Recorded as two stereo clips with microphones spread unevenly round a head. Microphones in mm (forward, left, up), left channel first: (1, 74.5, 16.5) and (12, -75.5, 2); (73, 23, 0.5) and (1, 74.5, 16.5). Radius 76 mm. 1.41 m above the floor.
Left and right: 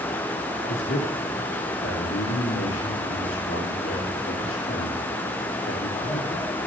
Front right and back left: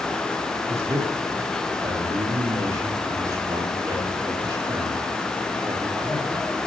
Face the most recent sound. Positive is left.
turn(degrees=90)